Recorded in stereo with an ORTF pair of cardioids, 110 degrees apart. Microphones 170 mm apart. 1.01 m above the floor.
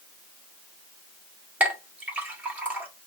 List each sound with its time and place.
1.6 s a clink: 10° right, 1.5 m